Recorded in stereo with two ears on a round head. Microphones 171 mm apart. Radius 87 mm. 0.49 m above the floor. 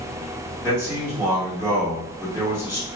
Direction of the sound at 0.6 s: 15° right (ahead or behind).